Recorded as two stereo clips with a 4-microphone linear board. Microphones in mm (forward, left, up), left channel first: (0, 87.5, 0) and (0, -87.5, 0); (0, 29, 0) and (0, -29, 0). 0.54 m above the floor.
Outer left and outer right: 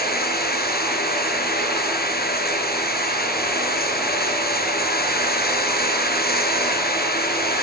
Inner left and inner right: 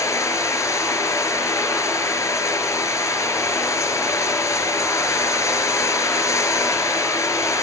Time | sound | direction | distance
0.0 | running water | 65° left (ahead or behind) | 5 m